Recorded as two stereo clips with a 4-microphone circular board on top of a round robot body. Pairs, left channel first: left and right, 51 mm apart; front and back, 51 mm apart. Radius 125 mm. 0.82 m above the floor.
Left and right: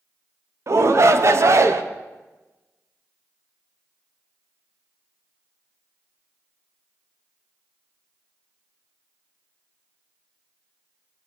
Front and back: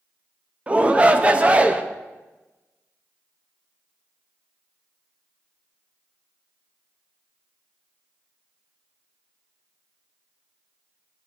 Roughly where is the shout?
Behind right.